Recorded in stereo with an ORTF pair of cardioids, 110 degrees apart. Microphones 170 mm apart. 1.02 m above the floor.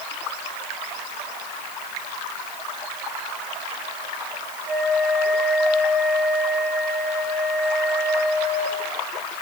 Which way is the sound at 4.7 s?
30° right.